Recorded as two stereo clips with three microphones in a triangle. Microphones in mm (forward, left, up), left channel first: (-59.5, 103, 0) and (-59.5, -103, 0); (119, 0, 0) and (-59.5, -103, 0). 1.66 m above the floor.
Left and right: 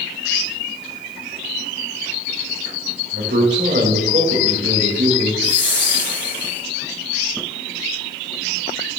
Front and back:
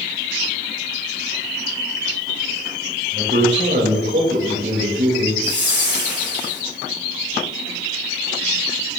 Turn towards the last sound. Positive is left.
turn(degrees=60)